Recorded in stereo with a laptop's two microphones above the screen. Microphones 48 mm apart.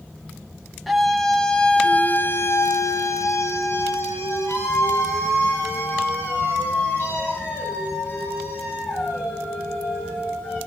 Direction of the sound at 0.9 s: Centre (ahead or behind).